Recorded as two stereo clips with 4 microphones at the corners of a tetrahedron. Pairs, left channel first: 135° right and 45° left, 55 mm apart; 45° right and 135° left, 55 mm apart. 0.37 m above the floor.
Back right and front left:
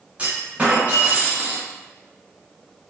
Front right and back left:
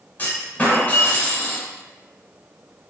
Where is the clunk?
5° right, 1.0 m.